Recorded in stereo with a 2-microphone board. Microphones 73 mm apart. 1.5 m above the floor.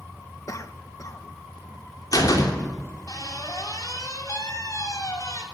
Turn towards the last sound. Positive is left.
turn(degrees=55)  # may be behind; listen again after turning